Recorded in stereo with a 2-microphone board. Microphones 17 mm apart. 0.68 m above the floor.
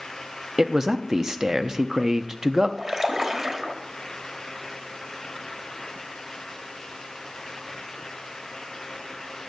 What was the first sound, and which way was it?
A man speaking, 35° right (ahead or behind).